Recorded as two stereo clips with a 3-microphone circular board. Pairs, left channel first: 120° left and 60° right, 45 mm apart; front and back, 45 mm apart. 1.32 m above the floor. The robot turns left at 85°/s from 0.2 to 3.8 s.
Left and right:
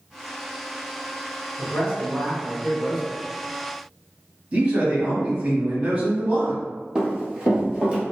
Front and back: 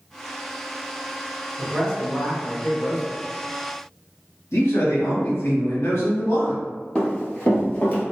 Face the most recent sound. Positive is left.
turn(degrees=-5)